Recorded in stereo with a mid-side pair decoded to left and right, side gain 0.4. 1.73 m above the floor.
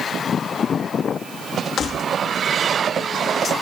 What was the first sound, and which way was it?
Keys jangling, 60° left.